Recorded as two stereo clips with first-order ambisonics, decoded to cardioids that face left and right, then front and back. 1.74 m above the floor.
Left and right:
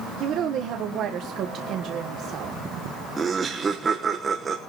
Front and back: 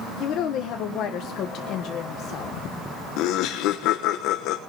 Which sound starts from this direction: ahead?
Laughter, at 3.2 s.